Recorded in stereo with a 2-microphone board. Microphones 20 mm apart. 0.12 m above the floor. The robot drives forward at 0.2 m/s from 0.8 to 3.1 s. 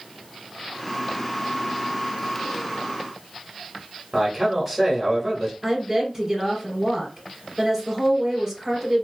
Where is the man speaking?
10° right (ahead or behind), 1.3 m.